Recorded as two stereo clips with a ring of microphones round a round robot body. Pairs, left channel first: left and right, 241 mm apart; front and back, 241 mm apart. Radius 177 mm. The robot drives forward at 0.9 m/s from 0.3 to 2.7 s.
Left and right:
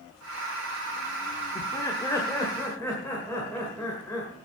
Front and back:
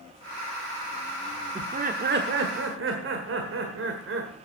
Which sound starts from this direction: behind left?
Laughter, at 1.6 s.